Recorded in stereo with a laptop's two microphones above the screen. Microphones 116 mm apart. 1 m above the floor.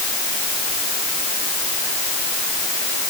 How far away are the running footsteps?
No running footsteps in this recording.